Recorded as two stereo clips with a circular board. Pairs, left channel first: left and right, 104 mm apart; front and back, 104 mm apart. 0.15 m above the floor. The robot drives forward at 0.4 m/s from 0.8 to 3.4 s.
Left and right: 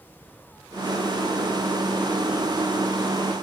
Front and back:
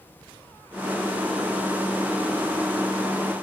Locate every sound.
Only background noise.